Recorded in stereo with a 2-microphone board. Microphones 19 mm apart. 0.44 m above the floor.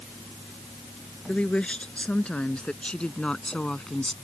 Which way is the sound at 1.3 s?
80° left.